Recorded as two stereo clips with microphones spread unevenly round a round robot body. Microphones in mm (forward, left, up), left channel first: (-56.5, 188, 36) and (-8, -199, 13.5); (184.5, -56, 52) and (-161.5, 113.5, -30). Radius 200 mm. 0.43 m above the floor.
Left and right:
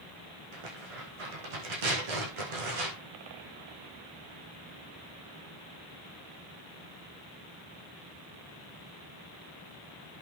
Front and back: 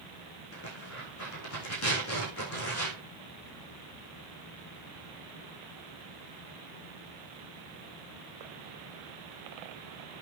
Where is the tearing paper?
80° right, 6.5 m.